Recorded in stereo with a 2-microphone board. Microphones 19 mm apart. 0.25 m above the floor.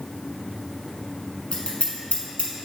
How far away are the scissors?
About 1.4 m.